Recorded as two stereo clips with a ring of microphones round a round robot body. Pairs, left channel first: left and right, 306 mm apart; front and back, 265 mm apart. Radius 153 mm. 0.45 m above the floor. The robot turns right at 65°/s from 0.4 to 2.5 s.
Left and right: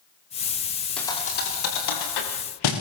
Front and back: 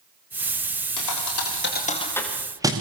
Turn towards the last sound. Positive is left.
turn(degrees=100)